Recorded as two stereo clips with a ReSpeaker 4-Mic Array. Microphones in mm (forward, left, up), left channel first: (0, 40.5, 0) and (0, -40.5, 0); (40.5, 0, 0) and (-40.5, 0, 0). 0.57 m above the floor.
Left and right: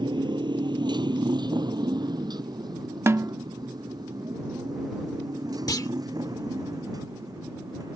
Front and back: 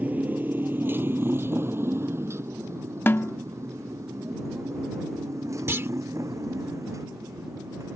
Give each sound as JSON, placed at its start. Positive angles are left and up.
{"t": 0.0, "sound": "a motorcycle", "azimuth_deg": -110}
{"t": 3.1, "sound": "a snare drum", "azimuth_deg": -50}
{"t": 5.7, "sound": "a clunk", "azimuth_deg": 125}